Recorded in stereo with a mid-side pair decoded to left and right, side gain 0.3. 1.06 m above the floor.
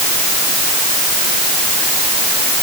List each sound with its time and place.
Only background noise.